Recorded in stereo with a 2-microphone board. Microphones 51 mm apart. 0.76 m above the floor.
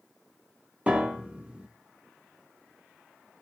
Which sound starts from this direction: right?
A piano, at 0.9 s.